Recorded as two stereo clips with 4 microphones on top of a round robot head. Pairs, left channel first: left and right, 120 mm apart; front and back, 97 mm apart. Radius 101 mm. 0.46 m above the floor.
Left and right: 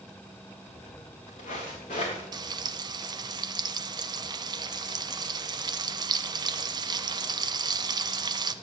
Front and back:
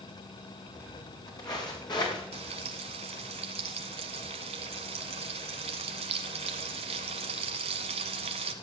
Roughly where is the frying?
Behind right.